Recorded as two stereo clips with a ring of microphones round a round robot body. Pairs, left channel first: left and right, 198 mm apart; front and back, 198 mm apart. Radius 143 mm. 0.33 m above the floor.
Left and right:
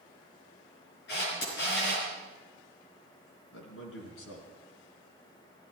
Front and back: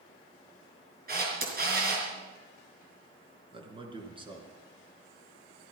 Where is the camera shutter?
140° left, 5 m.